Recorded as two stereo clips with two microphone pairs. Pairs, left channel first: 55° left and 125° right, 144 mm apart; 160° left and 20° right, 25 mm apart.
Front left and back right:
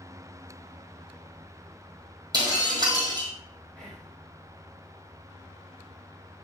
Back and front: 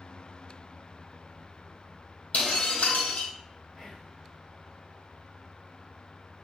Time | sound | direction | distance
2.3 | breaking glass | 175° left | 2 m
3.8 | whispering | 135° left | 3 m